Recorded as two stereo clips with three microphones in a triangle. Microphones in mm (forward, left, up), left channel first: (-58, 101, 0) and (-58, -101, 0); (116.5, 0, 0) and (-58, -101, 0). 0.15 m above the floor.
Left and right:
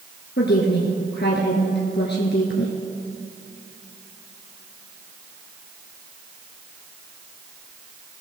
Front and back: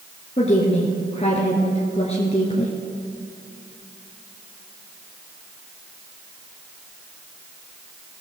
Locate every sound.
0.4 s a woman speaking: 80° left, 2 m